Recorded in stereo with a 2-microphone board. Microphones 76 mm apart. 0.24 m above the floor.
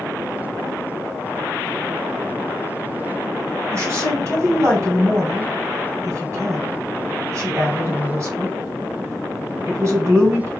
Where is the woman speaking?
40° right (ahead or behind), 1.9 m.